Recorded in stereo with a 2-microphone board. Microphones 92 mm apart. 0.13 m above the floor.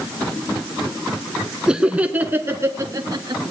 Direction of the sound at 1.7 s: 5° right (ahead or behind).